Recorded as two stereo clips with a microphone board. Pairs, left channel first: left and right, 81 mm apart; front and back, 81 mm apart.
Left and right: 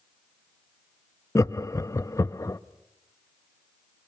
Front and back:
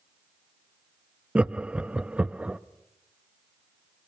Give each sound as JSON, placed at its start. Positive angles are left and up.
{"t": 1.4, "sound": "laughter", "azimuth_deg": 110, "distance_m": 0.6}